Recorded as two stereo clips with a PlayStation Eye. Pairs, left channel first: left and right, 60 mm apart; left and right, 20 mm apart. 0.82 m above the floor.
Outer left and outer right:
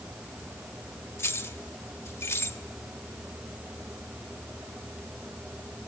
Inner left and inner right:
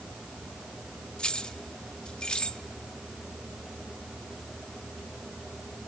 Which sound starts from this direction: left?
Keys jangling, at 1.2 s.